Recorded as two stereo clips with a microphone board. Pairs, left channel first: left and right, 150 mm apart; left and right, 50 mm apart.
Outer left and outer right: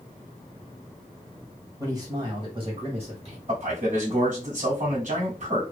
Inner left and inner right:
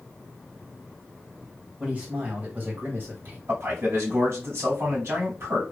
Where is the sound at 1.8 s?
25° right (ahead or behind), 2 m; by 3.4 s 50° right (ahead or behind), 2.5 m.